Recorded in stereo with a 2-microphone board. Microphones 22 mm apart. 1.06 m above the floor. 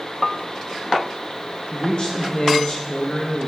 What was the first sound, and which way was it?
A man speaking, 45° left (ahead or behind).